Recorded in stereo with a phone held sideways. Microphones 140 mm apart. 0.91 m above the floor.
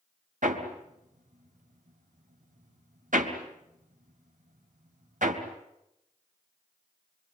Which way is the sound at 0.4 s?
70° right (ahead or behind).